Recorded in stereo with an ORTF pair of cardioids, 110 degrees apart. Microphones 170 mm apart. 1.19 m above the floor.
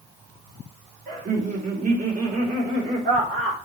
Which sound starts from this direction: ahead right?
Laughter, at 1.1 s.